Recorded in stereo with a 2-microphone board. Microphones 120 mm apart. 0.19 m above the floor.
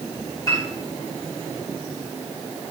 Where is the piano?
30° left (ahead or behind), 6.5 m.